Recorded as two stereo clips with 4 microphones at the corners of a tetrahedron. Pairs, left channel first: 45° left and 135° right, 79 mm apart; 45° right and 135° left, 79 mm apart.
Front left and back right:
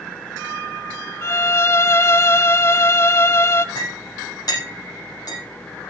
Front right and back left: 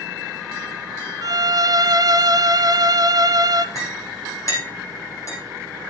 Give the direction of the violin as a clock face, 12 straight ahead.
9 o'clock.